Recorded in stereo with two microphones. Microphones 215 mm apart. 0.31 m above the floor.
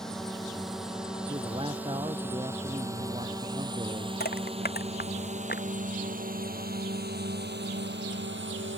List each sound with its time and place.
0.0 s a drone: centre (ahead or behind); by 8.8 s 60° right (ahead or behind)
1.3 s a man speaking: 25° right (ahead or behind)
4.2 s crushing: 50° left (ahead or behind)